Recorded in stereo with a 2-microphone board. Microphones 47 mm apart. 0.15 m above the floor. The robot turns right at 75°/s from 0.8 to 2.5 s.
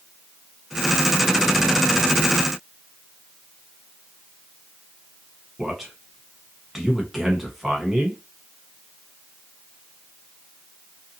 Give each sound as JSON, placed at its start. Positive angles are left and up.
{"t": 5.6, "sound": "a man speaking", "side_deg": -5, "distance_m": 1.1}